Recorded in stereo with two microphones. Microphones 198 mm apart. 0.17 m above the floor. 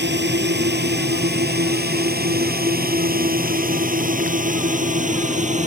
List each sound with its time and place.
0.0 s a drone: 60° right (ahead or behind); by 5.7 s 35° right (ahead or behind)